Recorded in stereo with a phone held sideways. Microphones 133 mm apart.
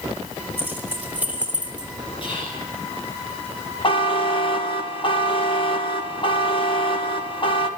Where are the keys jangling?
15° right (ahead or behind), 3.5 m; by 1.9 s 10° right (ahead or behind), 3 m.